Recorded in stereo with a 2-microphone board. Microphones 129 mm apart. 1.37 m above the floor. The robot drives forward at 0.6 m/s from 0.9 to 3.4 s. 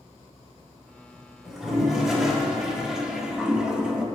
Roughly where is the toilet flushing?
Centre.